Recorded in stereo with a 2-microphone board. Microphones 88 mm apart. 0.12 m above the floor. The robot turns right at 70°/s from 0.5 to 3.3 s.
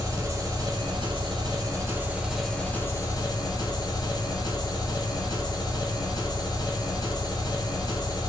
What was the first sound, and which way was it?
An engine running, 135° right.